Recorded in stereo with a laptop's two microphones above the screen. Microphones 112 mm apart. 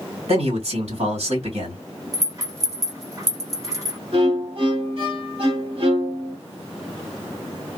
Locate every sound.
0.3 s a man speaking: 65° right (ahead or behind), 1.6 m
2.1 s a rattle: 30° right (ahead or behind), 1.3 m
4.1 s a violin: 55° right (ahead or behind), 1.3 m